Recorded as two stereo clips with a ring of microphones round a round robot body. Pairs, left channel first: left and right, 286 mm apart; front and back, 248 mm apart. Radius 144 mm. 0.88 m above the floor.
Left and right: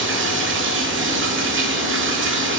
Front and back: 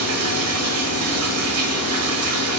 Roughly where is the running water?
Behind right.